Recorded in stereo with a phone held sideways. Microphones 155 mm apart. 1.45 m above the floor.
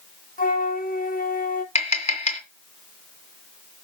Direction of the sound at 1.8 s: 45° left (ahead or behind).